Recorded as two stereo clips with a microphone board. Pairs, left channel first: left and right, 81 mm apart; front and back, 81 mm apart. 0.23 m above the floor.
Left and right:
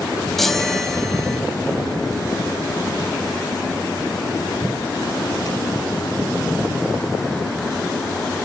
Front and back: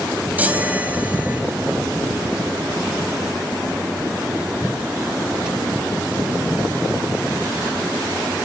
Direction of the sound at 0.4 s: 170° left.